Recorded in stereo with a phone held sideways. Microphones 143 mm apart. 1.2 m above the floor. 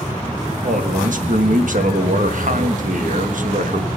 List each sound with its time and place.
0.6 s a man speaking: 65° right (ahead or behind), 1.2 m